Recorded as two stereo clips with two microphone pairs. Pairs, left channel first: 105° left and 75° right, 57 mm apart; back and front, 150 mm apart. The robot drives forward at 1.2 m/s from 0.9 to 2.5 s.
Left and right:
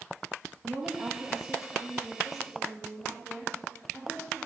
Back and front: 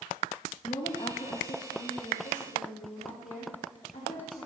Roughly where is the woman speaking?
Behind right.